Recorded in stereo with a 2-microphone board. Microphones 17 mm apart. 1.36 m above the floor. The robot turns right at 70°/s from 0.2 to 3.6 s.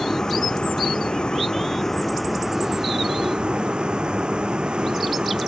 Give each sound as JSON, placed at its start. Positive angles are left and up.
{"t": 0.0, "sound": "a vehicle", "azimuth_deg": 40}